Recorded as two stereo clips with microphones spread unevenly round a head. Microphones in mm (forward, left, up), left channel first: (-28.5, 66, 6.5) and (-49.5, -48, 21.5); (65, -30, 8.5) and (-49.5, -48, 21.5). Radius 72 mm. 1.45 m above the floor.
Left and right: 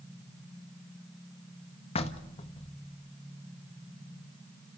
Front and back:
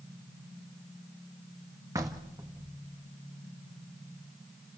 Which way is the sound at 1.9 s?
120° left.